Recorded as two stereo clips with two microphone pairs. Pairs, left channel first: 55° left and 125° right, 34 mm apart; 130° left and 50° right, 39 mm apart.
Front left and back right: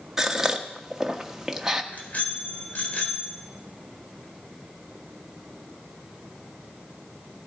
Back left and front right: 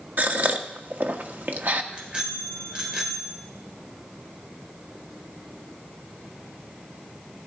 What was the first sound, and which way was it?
A gasp, 50° right.